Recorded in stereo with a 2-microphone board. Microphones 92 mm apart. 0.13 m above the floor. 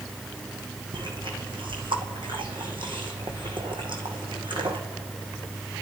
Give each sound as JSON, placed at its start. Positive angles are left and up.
{"t": 0.9, "sound": "chewing", "side_deg": -65, "distance_m": 2.0}